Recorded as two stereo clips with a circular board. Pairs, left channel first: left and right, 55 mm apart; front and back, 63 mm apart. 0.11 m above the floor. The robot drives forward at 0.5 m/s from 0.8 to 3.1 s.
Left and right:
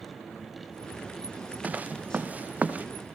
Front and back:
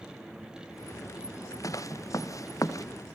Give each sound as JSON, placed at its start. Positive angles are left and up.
{"t": 1.6, "sound": "footsteps", "azimuth_deg": -30, "distance_m": 1.5}